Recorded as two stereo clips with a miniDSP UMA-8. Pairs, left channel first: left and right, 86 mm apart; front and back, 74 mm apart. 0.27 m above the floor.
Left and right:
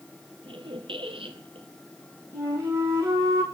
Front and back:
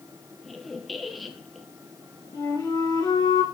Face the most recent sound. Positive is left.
turn(degrees=-30)